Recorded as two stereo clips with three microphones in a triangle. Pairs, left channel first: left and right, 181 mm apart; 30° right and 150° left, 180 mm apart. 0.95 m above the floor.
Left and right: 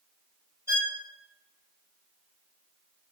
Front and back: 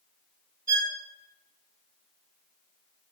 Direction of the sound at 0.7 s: 165° right.